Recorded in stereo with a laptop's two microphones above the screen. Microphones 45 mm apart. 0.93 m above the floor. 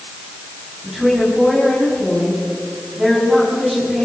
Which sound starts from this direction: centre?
A woman speaking, at 0.8 s.